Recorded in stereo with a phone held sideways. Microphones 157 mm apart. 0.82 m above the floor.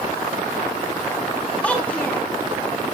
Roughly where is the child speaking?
Centre.